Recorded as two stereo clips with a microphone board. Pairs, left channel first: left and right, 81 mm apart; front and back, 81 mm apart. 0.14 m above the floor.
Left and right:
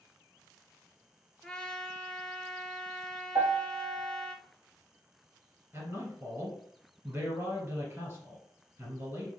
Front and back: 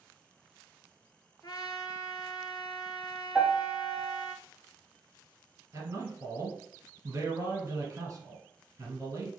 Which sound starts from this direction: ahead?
A trumpet, at 1.4 s.